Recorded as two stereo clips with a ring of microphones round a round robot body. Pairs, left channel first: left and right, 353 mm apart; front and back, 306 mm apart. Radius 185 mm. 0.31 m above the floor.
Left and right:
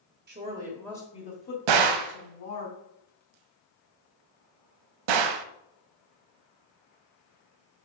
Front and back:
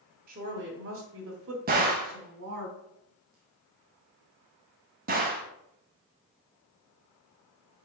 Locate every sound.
0.3 s a woman speaking: 135° right, 1.3 m; by 2.7 s 130° left, 3 m
1.7 s a gunshot: 115° right, 0.7 m